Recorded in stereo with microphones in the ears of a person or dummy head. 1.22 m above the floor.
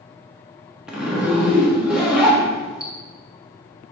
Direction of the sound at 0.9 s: 5° right (ahead or behind).